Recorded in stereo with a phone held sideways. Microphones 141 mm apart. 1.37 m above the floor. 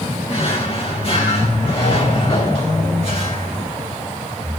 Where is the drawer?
45° left (ahead or behind), 2.5 m.